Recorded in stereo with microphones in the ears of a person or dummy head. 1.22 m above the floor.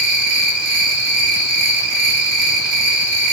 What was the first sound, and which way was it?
An insect, 45° right (ahead or behind).